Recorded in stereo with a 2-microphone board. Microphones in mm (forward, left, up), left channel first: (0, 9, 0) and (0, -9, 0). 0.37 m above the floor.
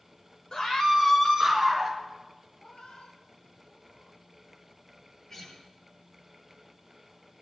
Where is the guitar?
25° left (ahead or behind), 7 m.